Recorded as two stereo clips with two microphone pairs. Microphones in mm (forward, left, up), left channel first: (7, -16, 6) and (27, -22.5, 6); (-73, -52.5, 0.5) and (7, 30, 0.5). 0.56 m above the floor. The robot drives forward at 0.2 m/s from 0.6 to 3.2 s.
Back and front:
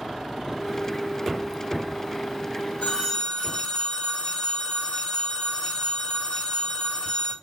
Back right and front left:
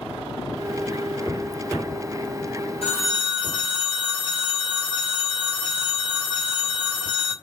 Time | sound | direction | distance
2.8 | a phone ringing | 165° right | 1.6 m